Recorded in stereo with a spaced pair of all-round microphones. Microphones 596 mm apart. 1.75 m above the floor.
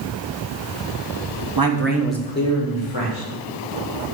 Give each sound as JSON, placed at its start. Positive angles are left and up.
{"t": 1.6, "sound": "a man speaking", "side_deg": -40, "distance_m": 0.9}